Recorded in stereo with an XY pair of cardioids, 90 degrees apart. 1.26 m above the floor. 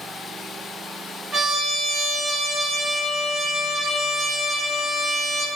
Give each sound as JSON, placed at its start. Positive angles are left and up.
{"t": 1.3, "sound": "a trumpet", "azimuth_deg": -40, "distance_m": 1.4}